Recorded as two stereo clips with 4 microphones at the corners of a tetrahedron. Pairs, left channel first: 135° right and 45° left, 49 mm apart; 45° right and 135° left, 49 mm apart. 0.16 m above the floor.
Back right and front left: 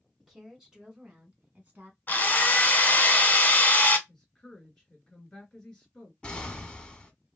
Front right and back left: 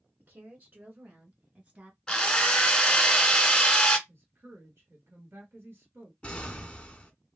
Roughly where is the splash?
No splash in this recording.